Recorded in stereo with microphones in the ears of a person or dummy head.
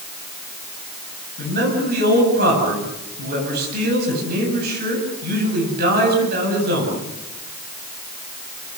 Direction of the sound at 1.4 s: 55° right (ahead or behind).